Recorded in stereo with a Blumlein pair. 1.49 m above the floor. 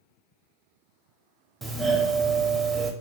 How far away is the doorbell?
About 0.6 m.